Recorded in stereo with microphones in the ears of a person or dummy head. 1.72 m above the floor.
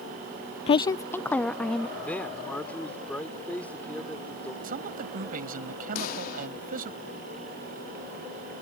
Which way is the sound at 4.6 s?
50° right (ahead or behind).